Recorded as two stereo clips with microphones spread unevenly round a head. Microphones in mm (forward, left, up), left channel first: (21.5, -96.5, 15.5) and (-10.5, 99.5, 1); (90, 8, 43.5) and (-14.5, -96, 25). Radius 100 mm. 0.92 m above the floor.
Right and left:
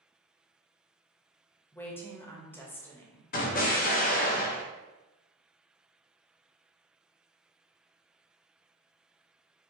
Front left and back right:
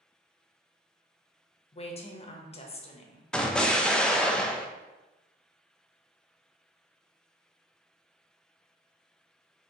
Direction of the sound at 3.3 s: 45° right.